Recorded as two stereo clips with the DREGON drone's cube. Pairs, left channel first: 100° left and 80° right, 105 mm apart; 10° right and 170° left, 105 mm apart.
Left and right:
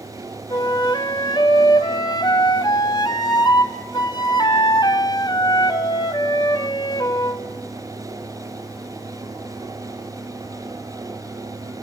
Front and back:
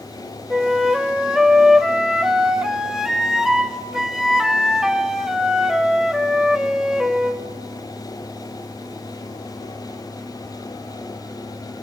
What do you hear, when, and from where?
0.5 s a flute: 85° left, 1.3 m